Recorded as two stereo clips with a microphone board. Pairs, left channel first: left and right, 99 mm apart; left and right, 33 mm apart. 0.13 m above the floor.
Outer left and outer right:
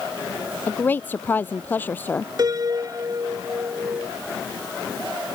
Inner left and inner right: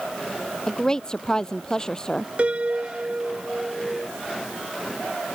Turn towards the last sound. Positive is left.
turn(degrees=-45)  # may be behind; listen again after turning